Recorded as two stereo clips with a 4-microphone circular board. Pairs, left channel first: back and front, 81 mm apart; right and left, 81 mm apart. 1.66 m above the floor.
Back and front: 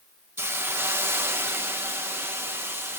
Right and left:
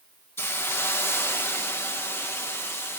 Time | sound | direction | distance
0.4 | a hiss | 45° right | 0.9 m